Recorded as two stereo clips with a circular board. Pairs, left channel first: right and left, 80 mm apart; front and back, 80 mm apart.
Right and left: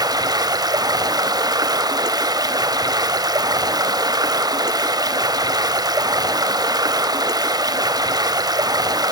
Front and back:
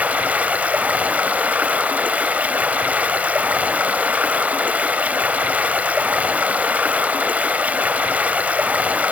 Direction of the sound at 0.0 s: 110° left.